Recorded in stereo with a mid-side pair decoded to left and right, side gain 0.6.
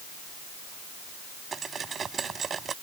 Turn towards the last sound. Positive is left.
turn(degrees=-35)